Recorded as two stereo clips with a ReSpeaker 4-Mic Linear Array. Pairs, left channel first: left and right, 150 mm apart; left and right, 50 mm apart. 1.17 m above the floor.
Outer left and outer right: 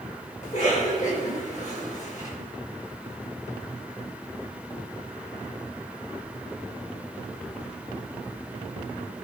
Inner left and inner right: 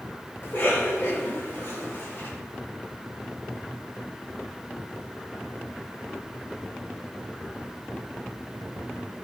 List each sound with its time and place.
0.4 s a cough: 50° left (ahead or behind), 5 m